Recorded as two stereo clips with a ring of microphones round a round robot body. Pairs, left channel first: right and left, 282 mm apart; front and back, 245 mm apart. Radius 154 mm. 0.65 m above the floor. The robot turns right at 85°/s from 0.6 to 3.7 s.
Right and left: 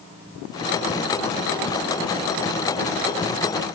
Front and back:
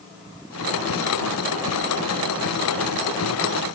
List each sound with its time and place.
Only background noise.